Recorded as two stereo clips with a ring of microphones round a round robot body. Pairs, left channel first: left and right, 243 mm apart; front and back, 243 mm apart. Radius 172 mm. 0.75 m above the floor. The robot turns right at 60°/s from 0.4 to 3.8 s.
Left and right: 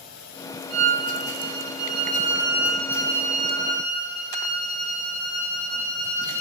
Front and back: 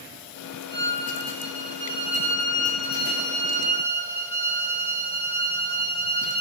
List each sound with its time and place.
0.7 s a violin: 120° right, 2 m; by 6.4 s 65° left, 2 m